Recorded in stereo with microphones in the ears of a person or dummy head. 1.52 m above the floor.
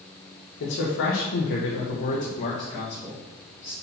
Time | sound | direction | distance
0.6 | a man speaking | 75° left (ahead or behind) | 1.5 m